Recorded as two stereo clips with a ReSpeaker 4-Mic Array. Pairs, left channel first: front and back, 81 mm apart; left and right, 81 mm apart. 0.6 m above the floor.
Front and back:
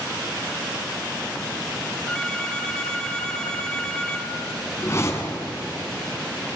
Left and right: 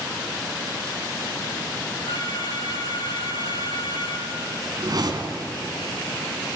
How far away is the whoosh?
About 2.5 m.